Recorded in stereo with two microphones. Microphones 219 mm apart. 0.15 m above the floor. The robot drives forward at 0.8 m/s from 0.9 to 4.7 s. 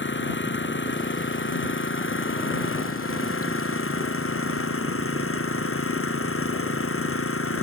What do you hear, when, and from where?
0.0 s an engine running: 60° left (ahead or behind); by 7.6 s 80° left